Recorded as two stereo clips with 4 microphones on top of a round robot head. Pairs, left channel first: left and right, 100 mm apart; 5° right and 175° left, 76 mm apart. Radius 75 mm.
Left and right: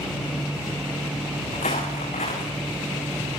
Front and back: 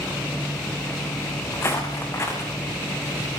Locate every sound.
1.5 s footsteps: 50° left, 6 m